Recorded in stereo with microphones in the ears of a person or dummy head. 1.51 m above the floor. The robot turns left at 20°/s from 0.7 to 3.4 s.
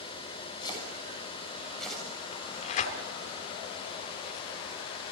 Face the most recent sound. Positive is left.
turn(degrees=50)  # may be behind; listen again after turning